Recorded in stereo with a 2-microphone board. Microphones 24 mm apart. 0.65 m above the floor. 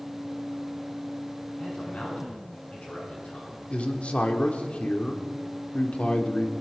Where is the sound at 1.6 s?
55° left (ahead or behind), 7 m; by 3.6 s 65° left (ahead or behind), 7.5 m.